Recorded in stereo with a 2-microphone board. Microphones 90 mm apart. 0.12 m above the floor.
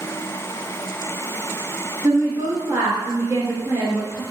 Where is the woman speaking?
30° right (ahead or behind), 1.7 m.